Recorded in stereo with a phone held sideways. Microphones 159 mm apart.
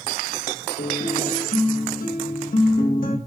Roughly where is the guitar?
Left.